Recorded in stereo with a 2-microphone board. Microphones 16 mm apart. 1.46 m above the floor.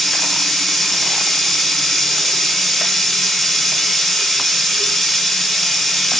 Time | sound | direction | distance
0.0 | running water | 20° left (ahead or behind) | 1.8 m